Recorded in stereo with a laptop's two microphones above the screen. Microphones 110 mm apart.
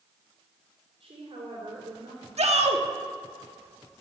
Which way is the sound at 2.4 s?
80° right.